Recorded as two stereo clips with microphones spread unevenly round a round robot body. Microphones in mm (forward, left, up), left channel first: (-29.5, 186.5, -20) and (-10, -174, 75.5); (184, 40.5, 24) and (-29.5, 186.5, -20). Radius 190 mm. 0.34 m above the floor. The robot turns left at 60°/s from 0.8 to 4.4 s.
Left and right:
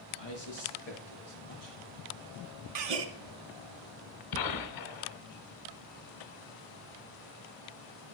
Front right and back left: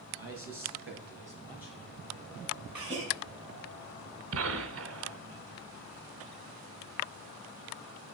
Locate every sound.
0.2 s a man speaking: 110° left, 5 m; by 1.8 s 50° left, 5 m
2.8 s a gasp: 130° right, 1.1 m; by 3.0 s 150° right, 1.1 m
4.3 s a gunshot: 125° left, 1.1 m; by 5.2 s 120° left, 1.1 m